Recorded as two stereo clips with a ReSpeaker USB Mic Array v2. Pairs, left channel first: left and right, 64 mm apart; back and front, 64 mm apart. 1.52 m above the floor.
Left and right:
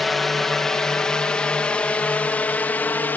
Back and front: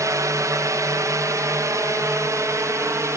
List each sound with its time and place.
0.0 s a drone: 5° left; by 3.2 s 35° left